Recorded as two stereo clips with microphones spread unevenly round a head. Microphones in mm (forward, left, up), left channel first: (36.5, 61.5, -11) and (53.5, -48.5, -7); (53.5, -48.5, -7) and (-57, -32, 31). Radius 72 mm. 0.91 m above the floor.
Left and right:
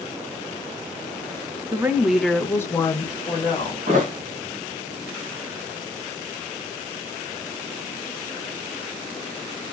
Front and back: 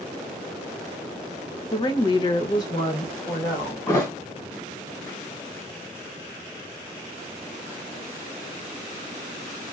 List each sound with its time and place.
1.7 s a woman speaking: 25° right, 0.6 m; by 3.8 s 55° left, 1.3 m
3.9 s a thud: 75° right, 1.9 m